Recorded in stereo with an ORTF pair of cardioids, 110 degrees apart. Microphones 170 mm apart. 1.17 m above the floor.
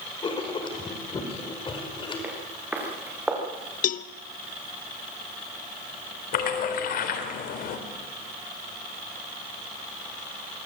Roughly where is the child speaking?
I don't hear a child speaking.